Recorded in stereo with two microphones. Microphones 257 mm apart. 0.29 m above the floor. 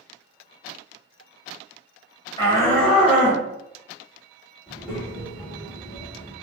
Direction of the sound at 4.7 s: 5° right (ahead or behind).